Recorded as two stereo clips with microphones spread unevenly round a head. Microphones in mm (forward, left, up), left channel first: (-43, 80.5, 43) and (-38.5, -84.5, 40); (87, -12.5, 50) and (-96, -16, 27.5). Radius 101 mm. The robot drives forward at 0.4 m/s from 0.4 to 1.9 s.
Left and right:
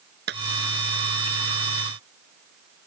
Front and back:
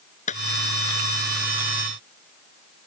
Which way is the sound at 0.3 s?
50° right.